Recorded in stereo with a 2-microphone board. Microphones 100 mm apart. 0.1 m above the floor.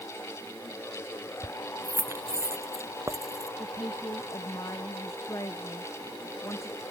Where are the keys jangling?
20° right (ahead or behind); by 3.5 s 35° right (ahead or behind).